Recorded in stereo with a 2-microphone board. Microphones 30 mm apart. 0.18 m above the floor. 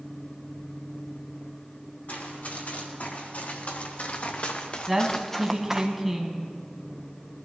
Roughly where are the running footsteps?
Left.